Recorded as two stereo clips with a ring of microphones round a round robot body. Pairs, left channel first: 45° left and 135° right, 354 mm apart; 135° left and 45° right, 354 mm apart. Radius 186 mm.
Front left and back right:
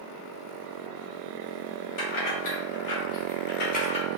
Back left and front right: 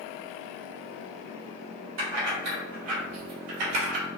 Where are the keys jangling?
10° left, 1.6 m; by 4.1 s 35° right, 0.9 m.